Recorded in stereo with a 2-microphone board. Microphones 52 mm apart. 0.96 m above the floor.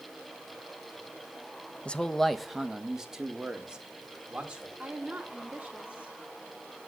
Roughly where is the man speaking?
Left.